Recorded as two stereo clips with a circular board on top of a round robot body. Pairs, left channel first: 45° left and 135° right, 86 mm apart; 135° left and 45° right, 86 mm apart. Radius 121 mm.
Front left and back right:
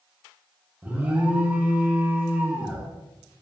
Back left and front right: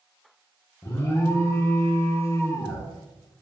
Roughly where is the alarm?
Behind.